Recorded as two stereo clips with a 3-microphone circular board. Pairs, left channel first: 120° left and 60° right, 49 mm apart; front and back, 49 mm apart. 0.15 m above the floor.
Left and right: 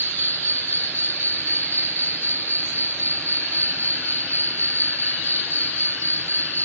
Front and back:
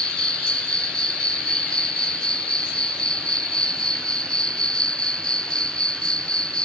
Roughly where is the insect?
Left.